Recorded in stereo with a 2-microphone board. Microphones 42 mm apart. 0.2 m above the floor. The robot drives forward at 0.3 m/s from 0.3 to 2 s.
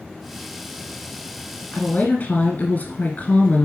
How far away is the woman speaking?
About 1.8 m.